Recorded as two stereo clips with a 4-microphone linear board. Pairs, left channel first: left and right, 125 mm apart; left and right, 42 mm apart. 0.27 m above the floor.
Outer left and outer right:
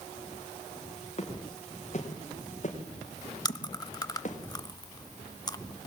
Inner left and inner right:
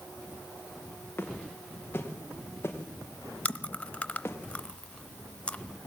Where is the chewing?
30° left (ahead or behind), 0.8 m.